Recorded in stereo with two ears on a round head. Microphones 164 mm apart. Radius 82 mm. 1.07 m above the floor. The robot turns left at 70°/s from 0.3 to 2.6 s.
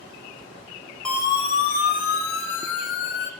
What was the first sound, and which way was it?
A siren, 5° left (ahead or behind).